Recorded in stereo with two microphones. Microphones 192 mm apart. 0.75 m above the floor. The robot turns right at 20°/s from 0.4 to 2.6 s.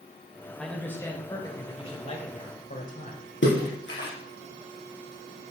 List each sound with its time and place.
0.6 s a man speaking: 5° left, 2.5 m; by 3.3 s 45° left, 2.5 m
3.4 s a splash: 85° left, 4 m